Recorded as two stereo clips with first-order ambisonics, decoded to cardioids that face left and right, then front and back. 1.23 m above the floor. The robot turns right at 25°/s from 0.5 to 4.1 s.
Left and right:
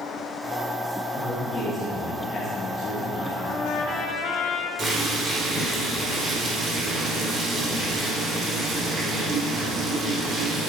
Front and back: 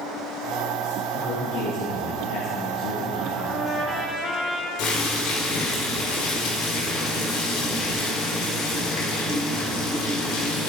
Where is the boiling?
30° right, 4.5 m.